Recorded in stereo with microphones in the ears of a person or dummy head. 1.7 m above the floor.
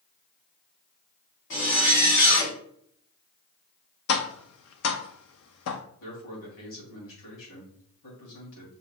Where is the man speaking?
75° left (ahead or behind), 3 m.